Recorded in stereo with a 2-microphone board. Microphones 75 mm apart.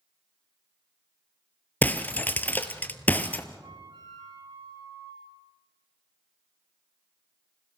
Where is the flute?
85° right, 9 m.